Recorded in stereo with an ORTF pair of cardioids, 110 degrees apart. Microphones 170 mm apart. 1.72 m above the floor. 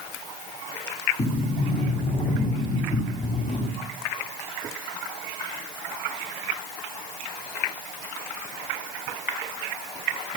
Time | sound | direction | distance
1.2 | a sliding door | 50° left | 6.5 m